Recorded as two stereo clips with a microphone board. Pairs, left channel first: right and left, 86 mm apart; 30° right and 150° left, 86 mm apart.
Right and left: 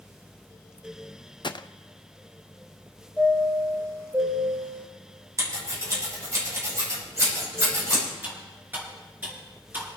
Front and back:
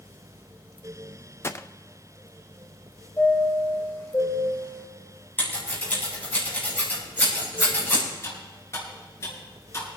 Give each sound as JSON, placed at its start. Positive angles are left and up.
{"t": 1.4, "sound": "a gunshot", "azimuth_deg": -85, "distance_m": 0.5}
{"t": 3.2, "sound": "a chime", "azimuth_deg": 25, "distance_m": 5.0}
{"t": 5.4, "sound": "scissors", "azimuth_deg": 35, "distance_m": 7.0}
{"t": 8.2, "sound": "cutlery clinking", "azimuth_deg": 25, "distance_m": 7.5}